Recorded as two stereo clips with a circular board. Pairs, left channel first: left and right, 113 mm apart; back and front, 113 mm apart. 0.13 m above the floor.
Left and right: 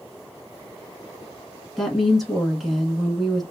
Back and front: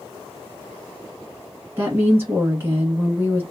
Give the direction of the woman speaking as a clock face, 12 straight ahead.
12 o'clock.